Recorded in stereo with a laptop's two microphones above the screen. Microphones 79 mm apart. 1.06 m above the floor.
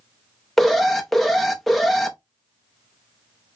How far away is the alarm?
About 0.5 m.